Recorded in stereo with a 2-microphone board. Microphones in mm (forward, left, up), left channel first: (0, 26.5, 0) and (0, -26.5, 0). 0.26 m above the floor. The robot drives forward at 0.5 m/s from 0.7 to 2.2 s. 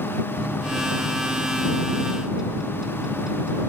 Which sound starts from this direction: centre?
A microwave, at 0.4 s.